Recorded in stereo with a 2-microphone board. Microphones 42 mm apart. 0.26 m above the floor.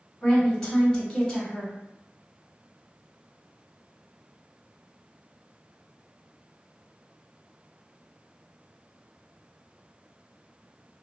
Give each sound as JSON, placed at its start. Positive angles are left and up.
{"t": 0.2, "sound": "a woman speaking", "side_deg": 10, "distance_m": 1.3}